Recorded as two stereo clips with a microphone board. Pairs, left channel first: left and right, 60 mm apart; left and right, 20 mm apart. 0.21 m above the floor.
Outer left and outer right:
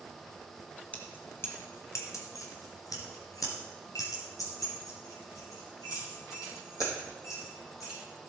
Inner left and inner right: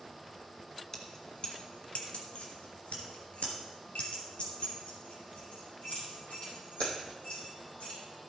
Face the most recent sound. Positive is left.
turn(degrees=60)  # may be behind; listen again after turning